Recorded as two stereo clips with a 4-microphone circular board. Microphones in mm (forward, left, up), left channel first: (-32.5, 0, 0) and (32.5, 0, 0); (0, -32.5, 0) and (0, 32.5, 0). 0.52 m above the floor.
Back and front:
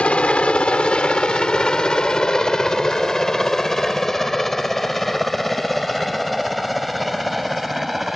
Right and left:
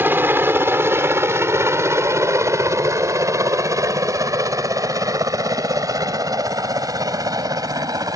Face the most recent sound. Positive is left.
turn(degrees=90)